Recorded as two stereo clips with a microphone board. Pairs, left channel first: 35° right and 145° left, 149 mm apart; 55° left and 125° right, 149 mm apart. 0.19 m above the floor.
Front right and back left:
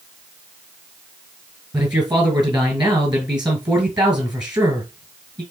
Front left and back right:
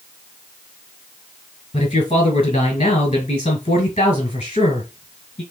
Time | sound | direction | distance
1.7 | a man speaking | 85° left | 2 m